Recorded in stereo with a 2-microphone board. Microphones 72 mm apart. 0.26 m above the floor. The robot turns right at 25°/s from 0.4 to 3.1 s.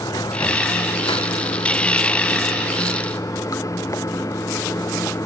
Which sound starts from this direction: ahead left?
Running water, at 0.0 s.